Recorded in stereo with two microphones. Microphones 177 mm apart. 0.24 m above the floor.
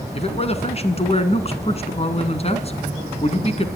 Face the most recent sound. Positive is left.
turn(degrees=40)  # may be behind; listen again after turning